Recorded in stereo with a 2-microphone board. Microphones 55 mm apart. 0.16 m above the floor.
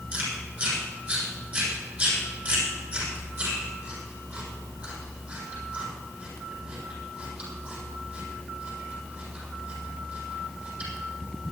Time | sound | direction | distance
0.1 | chewing | 30° right (ahead or behind) | 7.5 m